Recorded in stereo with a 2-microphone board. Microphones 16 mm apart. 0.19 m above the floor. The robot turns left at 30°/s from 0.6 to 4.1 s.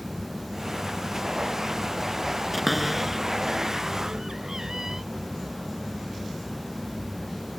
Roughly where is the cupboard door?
Centre.